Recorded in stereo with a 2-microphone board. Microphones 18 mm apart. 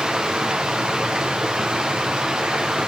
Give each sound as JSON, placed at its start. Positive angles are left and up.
{"t": 0.0, "sound": "running water", "side_deg": -55, "distance_m": 4.0}